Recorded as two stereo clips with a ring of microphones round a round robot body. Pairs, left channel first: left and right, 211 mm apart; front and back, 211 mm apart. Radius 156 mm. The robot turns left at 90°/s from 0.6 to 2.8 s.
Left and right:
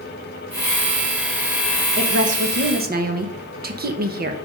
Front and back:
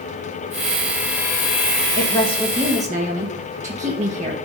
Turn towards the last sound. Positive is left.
turn(degrees=-125)